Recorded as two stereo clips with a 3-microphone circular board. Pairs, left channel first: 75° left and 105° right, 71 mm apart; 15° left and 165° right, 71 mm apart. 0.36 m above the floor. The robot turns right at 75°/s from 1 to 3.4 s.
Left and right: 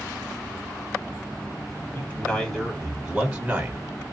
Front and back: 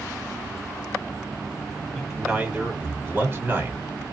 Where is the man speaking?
100° left, 1.1 m; by 3.8 s 150° right, 1.1 m.